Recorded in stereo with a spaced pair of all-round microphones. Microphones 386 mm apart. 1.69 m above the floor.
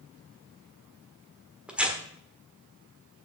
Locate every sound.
1.7 s tearing paper: 5° right (ahead or behind), 1.4 m